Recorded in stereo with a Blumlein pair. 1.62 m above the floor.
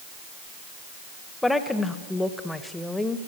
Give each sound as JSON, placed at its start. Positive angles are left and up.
{"t": 1.4, "sound": "a woman speaking", "azimuth_deg": 5, "distance_m": 1.4}